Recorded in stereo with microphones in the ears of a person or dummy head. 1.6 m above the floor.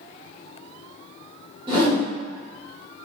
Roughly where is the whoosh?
Right.